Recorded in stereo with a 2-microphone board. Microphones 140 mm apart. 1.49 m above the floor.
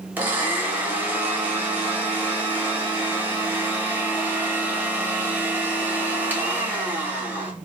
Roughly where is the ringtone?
No ringtone in this recording.